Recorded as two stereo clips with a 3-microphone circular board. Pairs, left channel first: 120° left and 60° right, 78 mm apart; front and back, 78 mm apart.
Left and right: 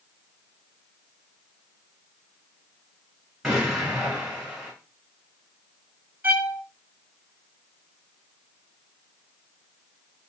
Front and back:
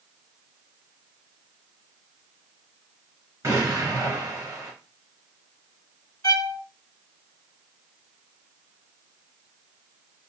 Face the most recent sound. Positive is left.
turn(degrees=0)